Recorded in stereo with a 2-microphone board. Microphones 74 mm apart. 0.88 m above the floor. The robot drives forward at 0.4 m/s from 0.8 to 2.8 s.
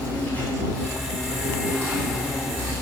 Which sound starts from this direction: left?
An insect, at 0.0 s.